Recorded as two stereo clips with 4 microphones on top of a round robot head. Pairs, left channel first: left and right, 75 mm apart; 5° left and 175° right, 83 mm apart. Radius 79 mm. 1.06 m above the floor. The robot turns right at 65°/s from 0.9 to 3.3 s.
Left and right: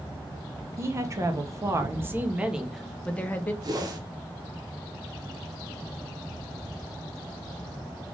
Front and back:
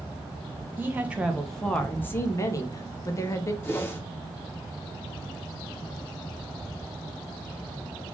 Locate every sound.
0.8 s a woman speaking: 120° right, 0.8 m; by 3.5 s 35° left, 0.8 m
3.6 s a whoosh: 60° right, 0.9 m